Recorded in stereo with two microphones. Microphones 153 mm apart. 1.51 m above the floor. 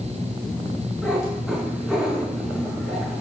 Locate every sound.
1.0 s a cat meowing: 5° right (ahead or behind), 8 m